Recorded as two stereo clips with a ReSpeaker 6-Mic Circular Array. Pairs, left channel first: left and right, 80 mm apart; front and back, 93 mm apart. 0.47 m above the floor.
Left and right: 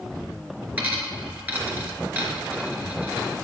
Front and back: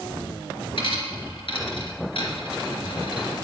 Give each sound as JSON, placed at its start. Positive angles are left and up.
{"t": 0.8, "sound": "a dropped coin", "azimuth_deg": -20, "distance_m": 2.0}